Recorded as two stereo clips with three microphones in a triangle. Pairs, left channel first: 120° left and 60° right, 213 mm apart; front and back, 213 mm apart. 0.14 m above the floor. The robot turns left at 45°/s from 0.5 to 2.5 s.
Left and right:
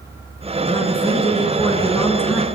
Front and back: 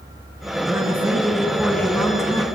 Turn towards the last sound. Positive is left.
turn(degrees=40)